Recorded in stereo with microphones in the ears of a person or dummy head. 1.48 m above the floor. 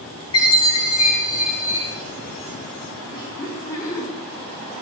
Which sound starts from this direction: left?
A chime, at 0.3 s.